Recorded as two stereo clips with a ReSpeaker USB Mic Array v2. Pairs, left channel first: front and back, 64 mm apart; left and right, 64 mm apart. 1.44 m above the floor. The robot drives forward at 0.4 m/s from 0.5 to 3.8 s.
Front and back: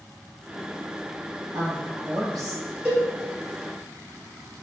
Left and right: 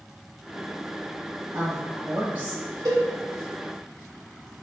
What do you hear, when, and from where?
1.5 s a woman speaking: 150° right, 1.5 m; by 2.6 s 155° right, 1.9 m
2.9 s a cowbell: 120° right, 1.3 m